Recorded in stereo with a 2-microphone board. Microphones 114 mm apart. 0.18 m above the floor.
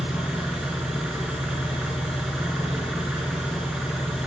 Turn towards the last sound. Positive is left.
turn(degrees=-5)  # may be behind; listen again after turning